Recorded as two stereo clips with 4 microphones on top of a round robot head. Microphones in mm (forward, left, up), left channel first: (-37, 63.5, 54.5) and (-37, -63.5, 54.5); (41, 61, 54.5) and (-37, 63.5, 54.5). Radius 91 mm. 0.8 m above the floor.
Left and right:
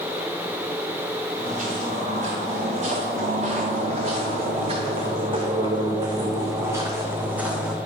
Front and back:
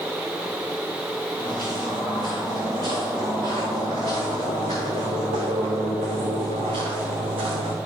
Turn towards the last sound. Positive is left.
turn(degrees=-175)